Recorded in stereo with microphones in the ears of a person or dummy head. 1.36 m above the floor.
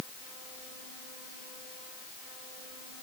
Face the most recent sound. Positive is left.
No sound to turn to.